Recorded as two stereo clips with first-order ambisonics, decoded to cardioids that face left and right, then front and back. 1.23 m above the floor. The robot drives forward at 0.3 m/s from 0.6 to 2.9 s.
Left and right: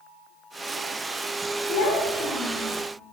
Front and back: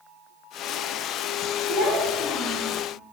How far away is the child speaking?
About 0.7 m.